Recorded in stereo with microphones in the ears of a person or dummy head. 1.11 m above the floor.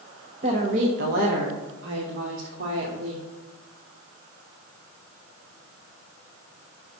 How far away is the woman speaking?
About 1.3 m.